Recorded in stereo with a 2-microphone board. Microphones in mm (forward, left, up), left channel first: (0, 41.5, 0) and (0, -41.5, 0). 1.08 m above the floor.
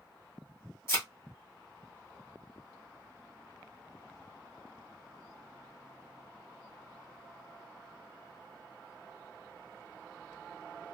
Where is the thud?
30° left (ahead or behind), 1.6 m.